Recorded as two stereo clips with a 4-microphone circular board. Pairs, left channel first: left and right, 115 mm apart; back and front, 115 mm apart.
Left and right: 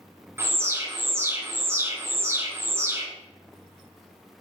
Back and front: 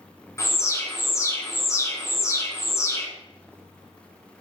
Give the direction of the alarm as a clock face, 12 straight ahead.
5 o'clock.